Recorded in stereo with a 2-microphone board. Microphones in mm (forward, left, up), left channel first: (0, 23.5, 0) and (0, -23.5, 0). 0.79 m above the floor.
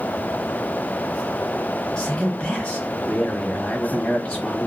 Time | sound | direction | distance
2.0 | a man speaking | 20° left (ahead or behind) | 1.0 m